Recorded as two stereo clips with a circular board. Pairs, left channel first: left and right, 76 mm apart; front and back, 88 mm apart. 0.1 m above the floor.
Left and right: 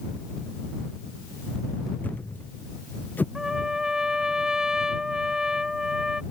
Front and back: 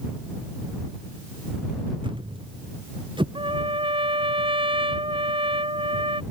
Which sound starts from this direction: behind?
A trumpet, at 3.4 s.